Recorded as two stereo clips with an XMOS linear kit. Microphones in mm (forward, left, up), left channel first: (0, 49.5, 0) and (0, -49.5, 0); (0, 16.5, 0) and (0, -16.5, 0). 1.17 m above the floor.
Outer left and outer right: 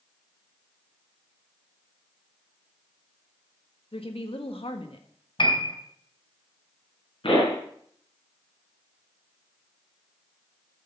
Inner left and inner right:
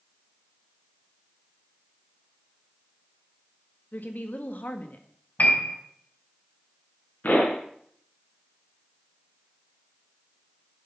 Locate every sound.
3.9 s a woman speaking: 70° left (ahead or behind), 1.4 m
5.4 s a piano: 60° left (ahead or behind), 2.5 m
7.2 s a pop: 60° left (ahead or behind), 4.5 m